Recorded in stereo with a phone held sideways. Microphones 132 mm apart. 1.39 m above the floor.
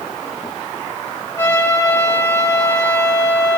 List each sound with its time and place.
1.4 s a trumpet: 20° left (ahead or behind), 7.5 m